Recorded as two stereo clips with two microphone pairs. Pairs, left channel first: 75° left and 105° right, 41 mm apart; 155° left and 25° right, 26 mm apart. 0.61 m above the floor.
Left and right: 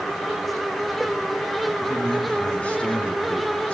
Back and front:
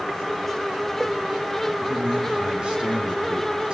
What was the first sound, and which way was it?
A man speaking, 15° left.